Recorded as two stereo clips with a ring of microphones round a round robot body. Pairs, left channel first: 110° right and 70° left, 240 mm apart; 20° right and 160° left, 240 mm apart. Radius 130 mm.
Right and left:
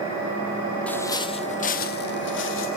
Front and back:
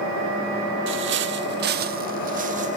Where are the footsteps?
165° left, 0.8 m; by 2.8 s 145° right, 1.4 m.